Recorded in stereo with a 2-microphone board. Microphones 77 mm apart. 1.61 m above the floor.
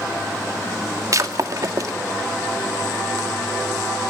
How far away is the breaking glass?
About 2 m.